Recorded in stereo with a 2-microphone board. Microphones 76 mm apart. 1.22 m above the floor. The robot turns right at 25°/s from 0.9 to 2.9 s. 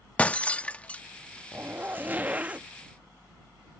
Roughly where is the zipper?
Right.